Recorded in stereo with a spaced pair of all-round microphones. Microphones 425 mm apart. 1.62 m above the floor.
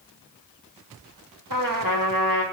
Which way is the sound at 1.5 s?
50° right (ahead or behind).